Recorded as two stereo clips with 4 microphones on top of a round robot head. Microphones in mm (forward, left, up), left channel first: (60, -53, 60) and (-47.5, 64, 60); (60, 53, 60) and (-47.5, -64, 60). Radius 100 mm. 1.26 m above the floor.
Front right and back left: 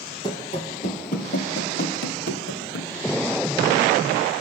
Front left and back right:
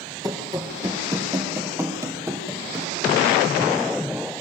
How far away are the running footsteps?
About 1.3 m.